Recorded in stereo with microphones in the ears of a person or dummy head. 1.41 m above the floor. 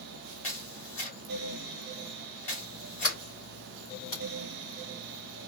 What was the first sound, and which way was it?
A camera shutter, 40° left (ahead or behind).